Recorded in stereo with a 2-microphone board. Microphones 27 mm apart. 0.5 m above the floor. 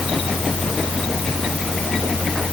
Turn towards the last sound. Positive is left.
No sound to turn to.